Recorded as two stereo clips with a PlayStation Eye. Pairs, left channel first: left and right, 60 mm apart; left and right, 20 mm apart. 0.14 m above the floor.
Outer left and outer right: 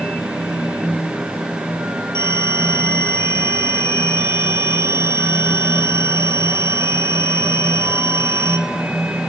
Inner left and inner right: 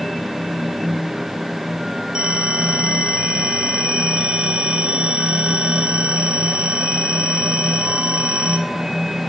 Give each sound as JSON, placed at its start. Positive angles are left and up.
{"t": 2.1, "sound": "a phone ringing", "side_deg": -50, "distance_m": 4.0}